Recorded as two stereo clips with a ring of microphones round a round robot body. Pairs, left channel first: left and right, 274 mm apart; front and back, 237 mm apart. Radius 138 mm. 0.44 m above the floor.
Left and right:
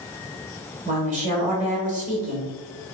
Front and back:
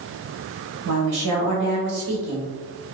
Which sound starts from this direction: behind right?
A woman speaking, at 0.8 s.